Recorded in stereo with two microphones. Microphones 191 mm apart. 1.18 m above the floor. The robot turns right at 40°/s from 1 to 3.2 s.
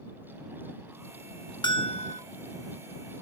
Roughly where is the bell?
Left.